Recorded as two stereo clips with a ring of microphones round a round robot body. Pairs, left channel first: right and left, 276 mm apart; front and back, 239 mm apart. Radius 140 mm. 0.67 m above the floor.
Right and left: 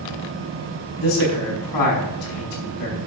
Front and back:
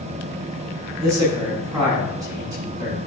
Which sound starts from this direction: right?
A man speaking, at 1.0 s.